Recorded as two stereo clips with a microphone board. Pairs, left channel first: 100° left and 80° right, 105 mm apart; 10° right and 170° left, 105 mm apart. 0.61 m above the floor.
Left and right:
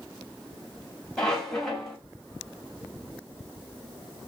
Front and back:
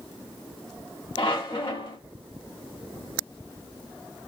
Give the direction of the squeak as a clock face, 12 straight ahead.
11 o'clock.